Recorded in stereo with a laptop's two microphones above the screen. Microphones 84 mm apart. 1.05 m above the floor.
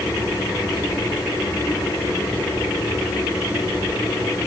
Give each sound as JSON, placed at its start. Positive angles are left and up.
{"t": 0.0, "sound": "a machine running", "side_deg": 45, "distance_m": 7.5}